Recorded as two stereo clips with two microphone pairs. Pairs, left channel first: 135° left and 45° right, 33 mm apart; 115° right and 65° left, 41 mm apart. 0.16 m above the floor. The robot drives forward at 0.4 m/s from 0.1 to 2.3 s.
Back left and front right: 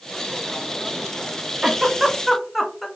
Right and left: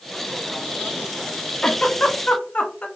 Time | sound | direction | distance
1.6 | a giggle | 105° right | 0.6 m